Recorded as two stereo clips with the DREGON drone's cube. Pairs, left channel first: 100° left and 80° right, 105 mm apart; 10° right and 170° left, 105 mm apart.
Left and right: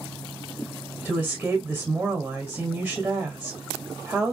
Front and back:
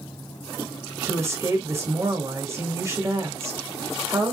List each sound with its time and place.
1.1 s a woman speaking: 145° right, 1.6 m